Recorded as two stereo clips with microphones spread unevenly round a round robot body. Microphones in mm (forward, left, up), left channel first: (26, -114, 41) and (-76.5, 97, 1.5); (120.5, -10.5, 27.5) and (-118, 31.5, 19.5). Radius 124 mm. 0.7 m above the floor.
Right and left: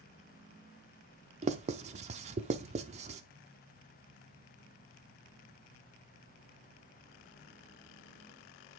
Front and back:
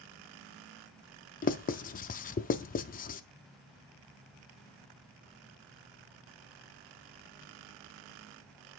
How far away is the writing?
About 0.5 m.